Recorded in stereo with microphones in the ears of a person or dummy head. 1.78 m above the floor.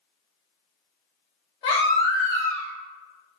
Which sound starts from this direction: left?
A baby crying, at 1.6 s.